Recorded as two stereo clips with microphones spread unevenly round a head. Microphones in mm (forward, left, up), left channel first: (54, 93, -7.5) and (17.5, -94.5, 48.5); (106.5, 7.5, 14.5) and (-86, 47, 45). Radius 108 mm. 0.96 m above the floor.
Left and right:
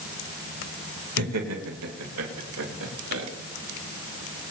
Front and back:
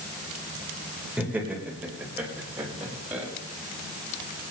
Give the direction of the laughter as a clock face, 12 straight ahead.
4 o'clock.